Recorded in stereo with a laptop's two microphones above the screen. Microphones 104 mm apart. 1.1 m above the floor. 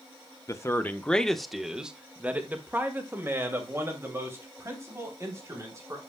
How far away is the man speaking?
About 0.8 m.